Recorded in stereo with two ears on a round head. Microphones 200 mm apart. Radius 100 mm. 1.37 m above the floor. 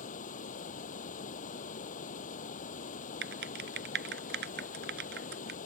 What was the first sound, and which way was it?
Running water, 40° left (ahead or behind).